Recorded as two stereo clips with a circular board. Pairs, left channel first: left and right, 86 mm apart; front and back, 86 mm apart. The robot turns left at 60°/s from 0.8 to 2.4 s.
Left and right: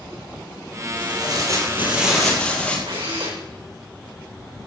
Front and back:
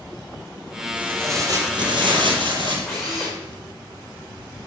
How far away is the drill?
About 6 m.